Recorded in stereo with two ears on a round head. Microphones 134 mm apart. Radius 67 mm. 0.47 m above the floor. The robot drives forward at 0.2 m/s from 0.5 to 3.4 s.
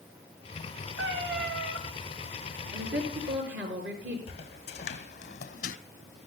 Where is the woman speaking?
75° right (ahead or behind), 6.5 m; by 4.2 s 80° right, 6.5 m.